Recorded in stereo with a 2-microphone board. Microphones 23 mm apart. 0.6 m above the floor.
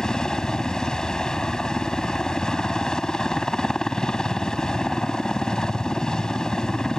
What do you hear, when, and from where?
0.0 s a helicopter: 35° left (ahead or behind)